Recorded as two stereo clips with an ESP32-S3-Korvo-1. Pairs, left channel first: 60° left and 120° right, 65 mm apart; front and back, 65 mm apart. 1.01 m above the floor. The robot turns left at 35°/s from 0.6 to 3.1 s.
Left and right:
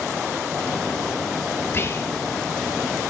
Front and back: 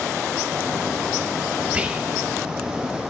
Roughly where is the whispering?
Behind left.